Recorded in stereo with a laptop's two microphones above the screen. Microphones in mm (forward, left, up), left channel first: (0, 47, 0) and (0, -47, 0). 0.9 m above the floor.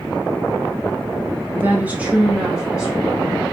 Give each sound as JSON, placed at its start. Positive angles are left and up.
{"t": 1.6, "sound": "a woman speaking", "side_deg": -20, "distance_m": 0.5}